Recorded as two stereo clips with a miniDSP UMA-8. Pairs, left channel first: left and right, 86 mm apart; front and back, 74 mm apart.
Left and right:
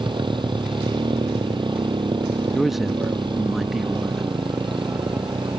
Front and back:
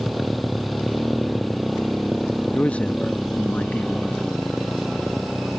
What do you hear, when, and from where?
0.0 s a motorcycle: 90° right
2.5 s a man speaking: 10° right